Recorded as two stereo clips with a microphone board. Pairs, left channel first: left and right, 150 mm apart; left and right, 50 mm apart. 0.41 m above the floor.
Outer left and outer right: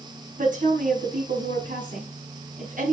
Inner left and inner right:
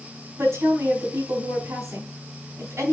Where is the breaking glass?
I don't hear breaking glass.